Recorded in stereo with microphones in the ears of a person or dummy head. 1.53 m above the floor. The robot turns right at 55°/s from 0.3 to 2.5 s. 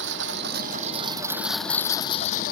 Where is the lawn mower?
70° right; by 2.5 s 50° left.